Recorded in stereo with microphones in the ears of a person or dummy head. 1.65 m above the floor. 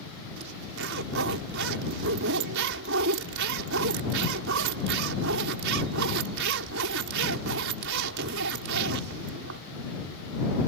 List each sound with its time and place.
0.4 s a zipper: 75° right (ahead or behind)